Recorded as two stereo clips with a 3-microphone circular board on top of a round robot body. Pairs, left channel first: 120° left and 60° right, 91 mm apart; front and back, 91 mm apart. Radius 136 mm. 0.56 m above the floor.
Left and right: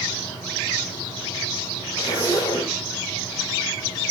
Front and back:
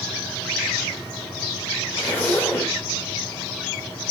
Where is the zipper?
70° left, 4 m.